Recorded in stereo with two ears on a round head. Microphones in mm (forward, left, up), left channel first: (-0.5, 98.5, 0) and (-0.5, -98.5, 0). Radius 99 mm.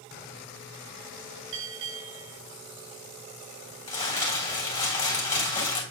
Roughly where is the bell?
Right.